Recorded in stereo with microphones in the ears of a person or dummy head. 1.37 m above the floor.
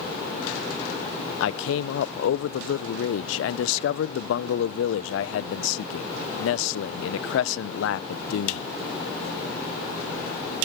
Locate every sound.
1.4 s a man speaking: 85° left, 0.6 m